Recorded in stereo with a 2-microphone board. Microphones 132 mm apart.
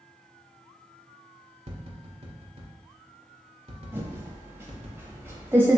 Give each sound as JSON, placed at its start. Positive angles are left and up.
{"t": 1.7, "sound": "tapping", "side_deg": -55, "distance_m": 1.0}
{"t": 3.9, "sound": "typing on a keyboard", "side_deg": -20, "distance_m": 0.9}